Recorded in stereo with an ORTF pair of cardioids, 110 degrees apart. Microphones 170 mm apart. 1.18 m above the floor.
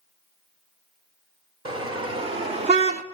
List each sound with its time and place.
1.6 s a car horn: 30° right, 2 m; by 3.0 s 55° right, 1.0 m